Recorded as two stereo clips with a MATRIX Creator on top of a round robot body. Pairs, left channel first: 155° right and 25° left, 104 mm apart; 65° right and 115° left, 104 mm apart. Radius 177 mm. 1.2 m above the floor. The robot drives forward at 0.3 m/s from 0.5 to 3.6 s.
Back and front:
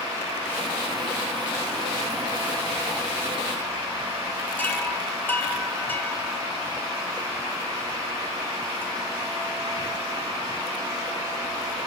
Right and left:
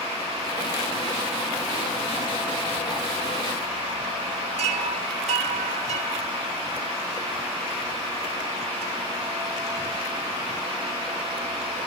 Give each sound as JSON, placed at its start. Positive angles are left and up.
{"t": 4.6, "sound": "a chime", "azimuth_deg": 130, "distance_m": 0.9}